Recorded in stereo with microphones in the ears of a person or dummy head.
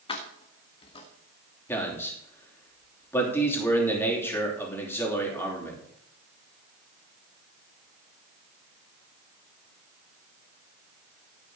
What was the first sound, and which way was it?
Keys jangling, 25° left (ahead or behind).